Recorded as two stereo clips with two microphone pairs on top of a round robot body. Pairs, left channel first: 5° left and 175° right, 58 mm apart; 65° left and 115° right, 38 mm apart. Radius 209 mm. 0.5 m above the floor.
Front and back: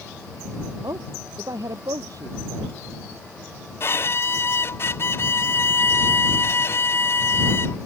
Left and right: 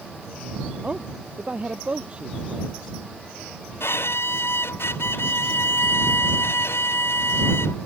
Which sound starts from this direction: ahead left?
A violin, at 3.8 s.